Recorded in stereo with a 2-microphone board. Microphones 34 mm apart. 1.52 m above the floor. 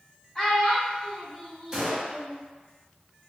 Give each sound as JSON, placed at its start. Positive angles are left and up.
{"t": 0.3, "sound": "a child speaking", "side_deg": 10, "distance_m": 1.9}
{"t": 1.7, "sound": "a gunshot", "side_deg": -20, "distance_m": 0.9}